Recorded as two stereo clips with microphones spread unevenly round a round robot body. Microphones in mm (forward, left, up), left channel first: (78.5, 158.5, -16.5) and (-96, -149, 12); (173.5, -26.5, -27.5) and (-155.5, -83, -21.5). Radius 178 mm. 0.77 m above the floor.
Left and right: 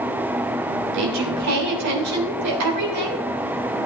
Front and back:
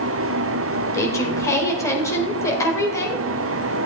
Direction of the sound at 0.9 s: 70° right.